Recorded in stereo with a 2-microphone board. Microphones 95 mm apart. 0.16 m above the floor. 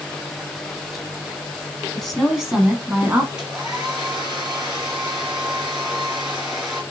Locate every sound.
1.9 s a woman speaking: 5° left (ahead or behind), 1.2 m; by 3.3 s 25° right (ahead or behind), 1.3 m
3.4 s a hair dryer: 10° right (ahead or behind), 1.7 m